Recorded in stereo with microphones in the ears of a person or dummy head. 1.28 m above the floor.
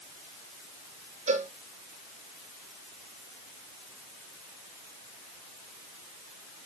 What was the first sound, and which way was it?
A cowbell, 40° right (ahead or behind).